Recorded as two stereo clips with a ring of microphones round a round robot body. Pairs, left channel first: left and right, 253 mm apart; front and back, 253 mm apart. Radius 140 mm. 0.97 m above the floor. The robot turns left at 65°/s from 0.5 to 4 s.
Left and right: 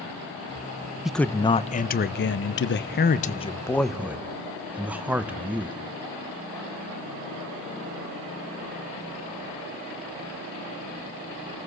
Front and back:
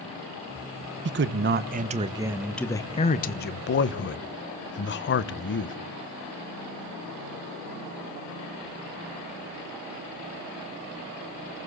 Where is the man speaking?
175° right, 0.6 m; by 5.8 s 10° right, 0.6 m.